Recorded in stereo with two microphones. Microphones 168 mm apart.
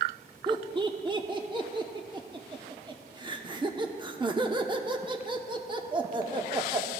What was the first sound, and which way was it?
Laughter, 25° right (ahead or behind).